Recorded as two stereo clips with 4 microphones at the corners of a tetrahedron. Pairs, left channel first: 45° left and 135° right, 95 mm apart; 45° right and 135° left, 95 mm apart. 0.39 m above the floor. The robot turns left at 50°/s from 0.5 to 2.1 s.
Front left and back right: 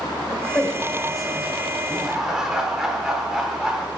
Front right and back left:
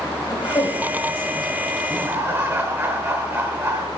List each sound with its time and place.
0.3 s a woman speaking: 10° right, 1.6 m; by 1.5 s 65° right, 1.6 m
1.9 s laughter: 160° left, 1.2 m; by 3.9 s 150° left, 1.2 m